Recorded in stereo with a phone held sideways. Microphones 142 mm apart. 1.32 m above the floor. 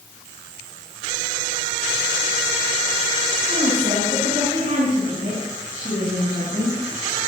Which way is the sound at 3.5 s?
65° right (ahead or behind).